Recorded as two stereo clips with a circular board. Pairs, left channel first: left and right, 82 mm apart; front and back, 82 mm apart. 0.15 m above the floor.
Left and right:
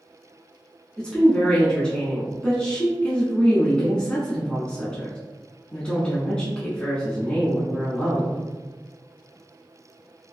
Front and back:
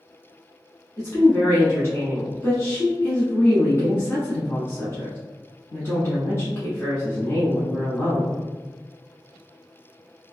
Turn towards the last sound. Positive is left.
turn(degrees=25)